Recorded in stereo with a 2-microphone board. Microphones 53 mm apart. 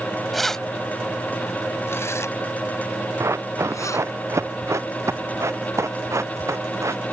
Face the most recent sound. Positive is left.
turn(degrees=-65)  # may be behind; listen again after turning